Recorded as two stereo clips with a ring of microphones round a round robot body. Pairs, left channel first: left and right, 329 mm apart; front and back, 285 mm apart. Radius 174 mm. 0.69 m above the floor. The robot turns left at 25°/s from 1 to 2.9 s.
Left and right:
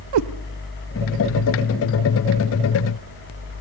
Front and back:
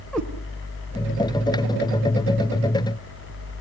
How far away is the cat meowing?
About 0.9 m.